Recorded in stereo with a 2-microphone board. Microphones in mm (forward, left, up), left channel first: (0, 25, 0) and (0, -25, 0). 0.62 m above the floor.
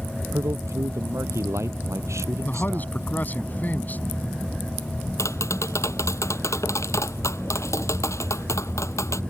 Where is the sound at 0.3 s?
75° right (ahead or behind).